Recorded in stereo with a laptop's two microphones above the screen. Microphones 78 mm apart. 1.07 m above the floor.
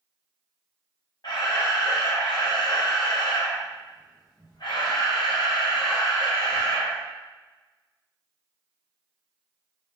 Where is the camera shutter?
65° left (ahead or behind), 0.9 m.